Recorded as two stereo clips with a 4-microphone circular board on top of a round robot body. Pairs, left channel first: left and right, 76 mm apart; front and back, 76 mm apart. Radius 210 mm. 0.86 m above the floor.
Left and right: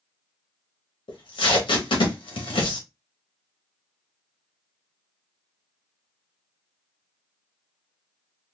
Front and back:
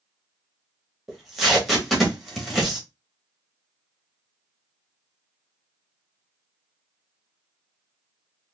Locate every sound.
1.1 s tape being pulled: 90° left, 0.9 m